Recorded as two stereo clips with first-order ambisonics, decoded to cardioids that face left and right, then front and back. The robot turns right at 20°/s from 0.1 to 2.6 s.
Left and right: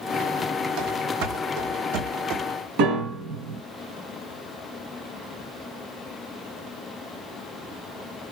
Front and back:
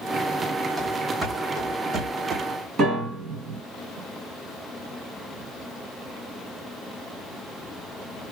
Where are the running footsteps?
105° right, 1.3 m; by 2.4 s 120° right, 1.2 m.